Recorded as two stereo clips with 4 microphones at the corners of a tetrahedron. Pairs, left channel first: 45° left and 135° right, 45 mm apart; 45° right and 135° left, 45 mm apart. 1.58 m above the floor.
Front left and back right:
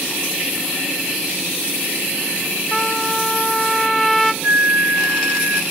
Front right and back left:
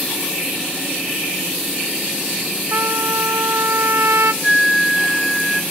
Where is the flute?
140° right, 1.5 m.